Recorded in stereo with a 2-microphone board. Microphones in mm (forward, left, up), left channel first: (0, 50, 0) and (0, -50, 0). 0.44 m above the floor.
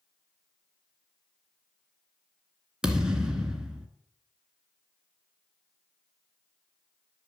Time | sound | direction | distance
2.8 | a thud | 10° right (ahead or behind) | 1.9 m